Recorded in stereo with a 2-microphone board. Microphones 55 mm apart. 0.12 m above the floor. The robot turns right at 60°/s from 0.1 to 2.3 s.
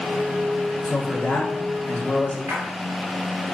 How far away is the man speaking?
About 1.2 m.